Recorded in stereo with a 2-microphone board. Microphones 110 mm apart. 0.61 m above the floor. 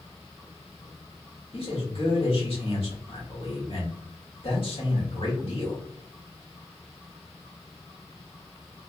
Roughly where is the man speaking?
Left.